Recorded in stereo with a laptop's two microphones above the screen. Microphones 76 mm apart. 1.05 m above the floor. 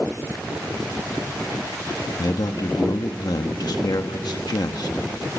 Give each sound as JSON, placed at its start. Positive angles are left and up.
{"t": 2.2, "sound": "a man speaking", "side_deg": 60, "distance_m": 1.2}